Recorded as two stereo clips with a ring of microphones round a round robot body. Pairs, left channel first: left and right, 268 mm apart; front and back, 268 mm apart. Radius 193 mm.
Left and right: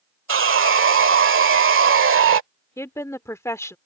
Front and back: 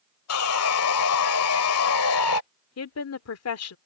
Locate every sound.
0.3 s sawing: 45° right
2.8 s a woman speaking: 10° left